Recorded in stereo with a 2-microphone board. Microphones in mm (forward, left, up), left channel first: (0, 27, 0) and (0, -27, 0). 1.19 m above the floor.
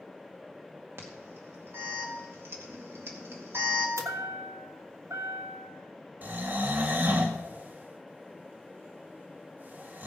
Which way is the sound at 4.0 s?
70° right (ahead or behind).